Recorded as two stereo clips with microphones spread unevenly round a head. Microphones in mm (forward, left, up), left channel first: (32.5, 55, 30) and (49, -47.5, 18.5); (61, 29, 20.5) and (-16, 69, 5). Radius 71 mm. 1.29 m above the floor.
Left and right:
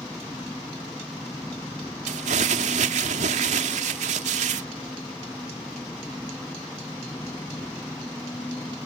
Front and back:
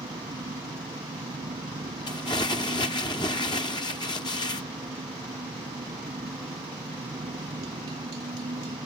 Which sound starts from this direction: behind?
An engine running, at 0.0 s.